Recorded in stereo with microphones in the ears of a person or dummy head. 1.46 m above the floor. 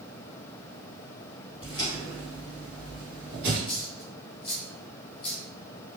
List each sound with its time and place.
1.6 s footsteps: 30° left (ahead or behind), 2 m; by 3.6 s 10° right (ahead or behind), 2 m
3.7 s a dropped coin: 35° left (ahead or behind), 1.0 m